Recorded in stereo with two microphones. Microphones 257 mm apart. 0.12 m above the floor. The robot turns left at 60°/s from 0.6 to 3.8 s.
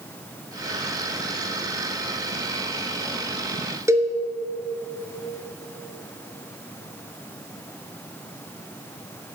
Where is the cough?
No cough in this recording.